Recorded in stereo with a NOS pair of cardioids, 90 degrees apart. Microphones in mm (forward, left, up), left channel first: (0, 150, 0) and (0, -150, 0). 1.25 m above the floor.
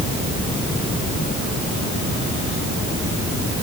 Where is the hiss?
I don't hear a hiss.